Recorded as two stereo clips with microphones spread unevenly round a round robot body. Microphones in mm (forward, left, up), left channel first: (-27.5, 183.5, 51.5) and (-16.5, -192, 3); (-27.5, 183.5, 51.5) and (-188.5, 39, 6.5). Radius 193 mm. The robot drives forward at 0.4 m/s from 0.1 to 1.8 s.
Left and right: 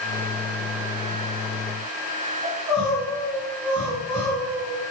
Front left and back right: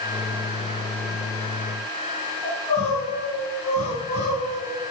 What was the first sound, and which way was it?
Crying, 25° right.